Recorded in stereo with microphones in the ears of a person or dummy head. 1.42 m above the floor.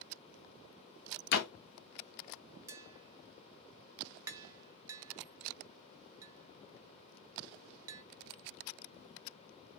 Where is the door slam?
65° left (ahead or behind), 0.6 m.